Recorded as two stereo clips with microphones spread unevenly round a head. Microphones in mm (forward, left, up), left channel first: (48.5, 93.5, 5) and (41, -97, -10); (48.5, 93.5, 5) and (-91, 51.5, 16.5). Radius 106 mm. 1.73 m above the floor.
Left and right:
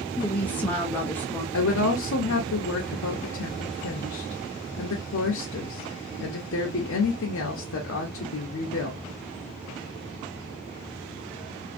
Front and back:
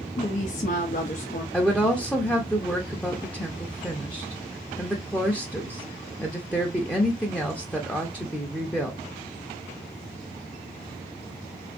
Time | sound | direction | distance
0.2 | a woman speaking | 15° left | 0.5 m
1.5 | a woman speaking | 100° left | 0.6 m